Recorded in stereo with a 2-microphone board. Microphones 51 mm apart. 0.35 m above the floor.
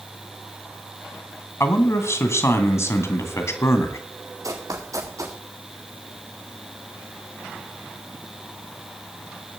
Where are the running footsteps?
80° right, 3.5 m.